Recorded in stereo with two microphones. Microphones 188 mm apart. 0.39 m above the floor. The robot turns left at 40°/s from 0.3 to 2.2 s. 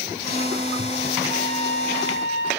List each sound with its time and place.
1.3 s a trumpet: 150° left, 6 m; by 2.5 s 110° left, 6 m